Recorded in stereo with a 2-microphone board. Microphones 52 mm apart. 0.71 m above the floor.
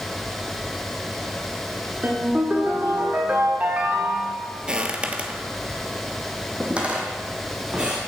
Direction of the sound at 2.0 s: 35° right (ahead or behind).